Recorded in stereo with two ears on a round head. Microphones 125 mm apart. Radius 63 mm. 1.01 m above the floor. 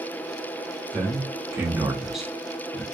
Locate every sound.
0.9 s a man speaking: 20° right (ahead or behind), 1.0 m; by 2.8 s 10° left (ahead or behind), 0.9 m